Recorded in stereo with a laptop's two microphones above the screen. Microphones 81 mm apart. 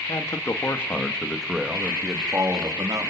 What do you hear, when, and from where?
0.1 s a man speaking: 45° left (ahead or behind), 2 m; by 3.1 s 50° right (ahead or behind), 2.5 m